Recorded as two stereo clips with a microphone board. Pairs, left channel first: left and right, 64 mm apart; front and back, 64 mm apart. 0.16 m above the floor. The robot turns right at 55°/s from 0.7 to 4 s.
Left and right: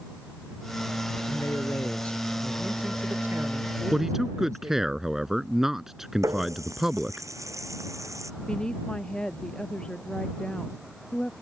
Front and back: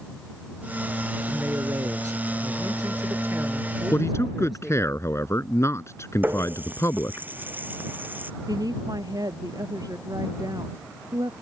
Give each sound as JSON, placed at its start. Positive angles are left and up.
{"t": 1.3, "sound": "a man speaking", "azimuth_deg": 115}
{"t": 3.9, "sound": "a man speaking", "azimuth_deg": -15}
{"t": 6.2, "sound": "a running tap", "azimuth_deg": -125}
{"t": 8.5, "sound": "a woman speaking", "azimuth_deg": 165}